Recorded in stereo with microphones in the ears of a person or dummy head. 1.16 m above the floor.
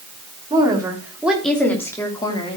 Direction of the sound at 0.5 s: 25° right (ahead or behind).